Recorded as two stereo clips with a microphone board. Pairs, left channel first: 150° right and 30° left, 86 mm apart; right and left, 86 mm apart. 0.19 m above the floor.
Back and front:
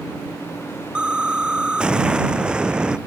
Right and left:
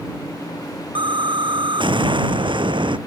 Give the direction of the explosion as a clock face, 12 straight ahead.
8 o'clock.